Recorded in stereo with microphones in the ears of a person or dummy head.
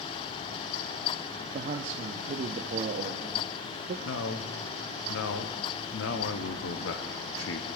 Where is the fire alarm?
No fire alarm in this recording.